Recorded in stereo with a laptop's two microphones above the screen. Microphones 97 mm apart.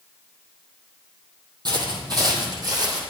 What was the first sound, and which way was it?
Footsteps, 45° right (ahead or behind).